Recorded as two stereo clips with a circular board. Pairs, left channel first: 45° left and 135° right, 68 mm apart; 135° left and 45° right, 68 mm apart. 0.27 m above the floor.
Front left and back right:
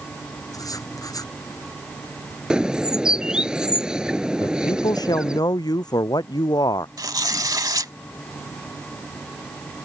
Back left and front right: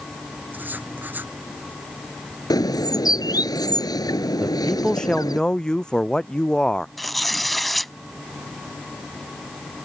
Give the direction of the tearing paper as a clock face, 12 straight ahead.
5 o'clock.